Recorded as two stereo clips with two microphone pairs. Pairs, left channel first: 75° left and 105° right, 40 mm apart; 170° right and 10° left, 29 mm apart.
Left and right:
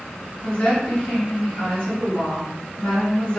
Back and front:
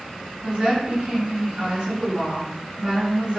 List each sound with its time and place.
0.4 s a woman speaking: 55° left, 1.2 m